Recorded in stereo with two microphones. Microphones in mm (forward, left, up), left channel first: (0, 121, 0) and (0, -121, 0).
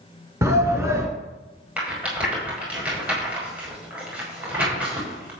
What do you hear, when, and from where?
0.4 s a shout: 10° right (ahead or behind), 1.7 m
1.8 s a rattle: 5° right (ahead or behind), 6 m